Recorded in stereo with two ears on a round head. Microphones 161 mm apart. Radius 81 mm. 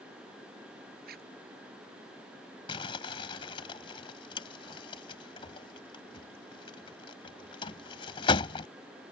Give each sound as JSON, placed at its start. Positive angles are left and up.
{"t": 1.1, "sound": "a zipper", "side_deg": -60}
{"t": 2.7, "sound": "crumpling", "side_deg": 30}